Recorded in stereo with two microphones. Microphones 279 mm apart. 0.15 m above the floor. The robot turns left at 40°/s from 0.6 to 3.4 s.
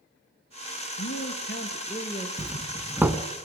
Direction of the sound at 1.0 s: 65° left.